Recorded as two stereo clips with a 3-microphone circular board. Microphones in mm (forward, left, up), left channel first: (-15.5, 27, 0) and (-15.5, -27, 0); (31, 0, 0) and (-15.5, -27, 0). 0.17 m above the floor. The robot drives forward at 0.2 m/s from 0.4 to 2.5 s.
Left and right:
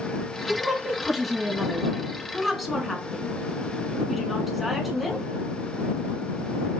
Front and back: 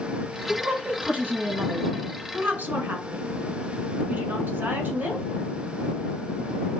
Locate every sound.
0.5 s a woman speaking: 175° right, 1.4 m